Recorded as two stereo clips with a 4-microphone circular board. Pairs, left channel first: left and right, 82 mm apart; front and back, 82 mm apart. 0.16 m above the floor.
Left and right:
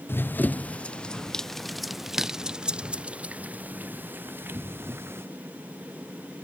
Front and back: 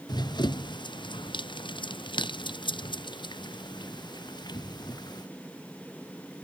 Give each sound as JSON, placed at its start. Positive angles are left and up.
{"t": 0.1, "sound": "running footsteps", "azimuth_deg": 25}